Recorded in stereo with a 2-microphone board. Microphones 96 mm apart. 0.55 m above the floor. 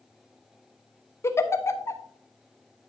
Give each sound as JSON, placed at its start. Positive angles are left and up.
{"t": 1.2, "sound": "a giggle", "side_deg": 30, "distance_m": 0.7}